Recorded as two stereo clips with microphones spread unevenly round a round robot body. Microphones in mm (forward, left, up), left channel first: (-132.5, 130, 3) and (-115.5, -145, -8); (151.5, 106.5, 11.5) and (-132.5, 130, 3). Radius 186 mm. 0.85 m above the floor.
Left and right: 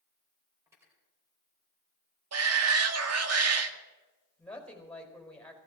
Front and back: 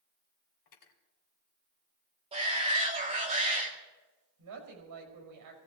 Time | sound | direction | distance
0.7 | cutlery clinking | 5° right | 2 m
2.3 | a shout | 110° right | 1.7 m
4.4 | a woman speaking | straight behind | 4.5 m